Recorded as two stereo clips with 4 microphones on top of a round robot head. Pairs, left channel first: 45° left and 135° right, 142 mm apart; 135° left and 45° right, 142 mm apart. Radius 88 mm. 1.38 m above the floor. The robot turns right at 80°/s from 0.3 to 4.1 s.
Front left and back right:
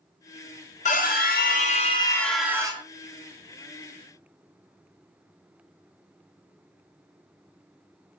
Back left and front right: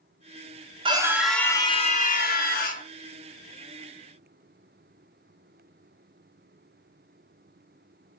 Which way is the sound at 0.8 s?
10° left.